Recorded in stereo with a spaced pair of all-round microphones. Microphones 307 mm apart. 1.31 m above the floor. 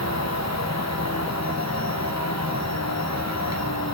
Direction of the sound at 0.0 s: 60° left (ahead or behind).